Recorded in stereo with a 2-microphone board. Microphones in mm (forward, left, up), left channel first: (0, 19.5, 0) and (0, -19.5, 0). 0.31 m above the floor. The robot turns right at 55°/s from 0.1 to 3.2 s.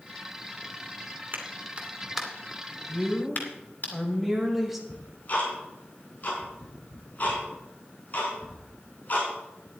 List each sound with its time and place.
1.3 s a clap: 45° right (ahead or behind), 2.5 m; by 3.9 s 50° left (ahead or behind), 2.5 m
2.9 s a woman speaking: 5° left (ahead or behind), 1.7 m; by 4.8 s 5° right (ahead or behind), 1.7 m
4.9 s ticking: 40° left (ahead or behind), 4.5 m